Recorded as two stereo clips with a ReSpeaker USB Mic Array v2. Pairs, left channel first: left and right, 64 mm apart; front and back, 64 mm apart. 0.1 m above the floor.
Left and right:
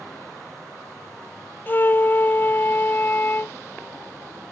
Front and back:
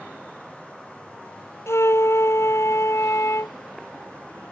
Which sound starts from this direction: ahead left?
A flute, at 1.7 s.